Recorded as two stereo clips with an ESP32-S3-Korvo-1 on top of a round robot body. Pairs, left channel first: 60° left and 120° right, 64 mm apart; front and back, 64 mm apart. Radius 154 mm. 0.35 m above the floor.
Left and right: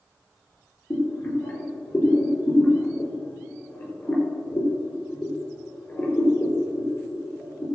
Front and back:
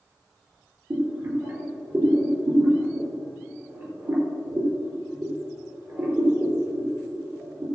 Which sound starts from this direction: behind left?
Boiling, at 0.9 s.